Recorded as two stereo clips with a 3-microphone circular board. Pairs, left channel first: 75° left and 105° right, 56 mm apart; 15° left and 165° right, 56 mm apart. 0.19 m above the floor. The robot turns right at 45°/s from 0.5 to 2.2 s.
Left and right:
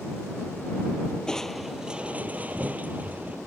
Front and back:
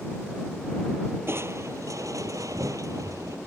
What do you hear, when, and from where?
1.3 s crushing: 155° left; by 3.4 s 165° right